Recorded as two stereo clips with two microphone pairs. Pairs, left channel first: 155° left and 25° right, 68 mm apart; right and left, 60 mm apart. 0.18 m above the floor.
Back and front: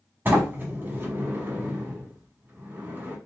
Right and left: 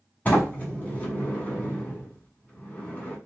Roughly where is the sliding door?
Ahead right.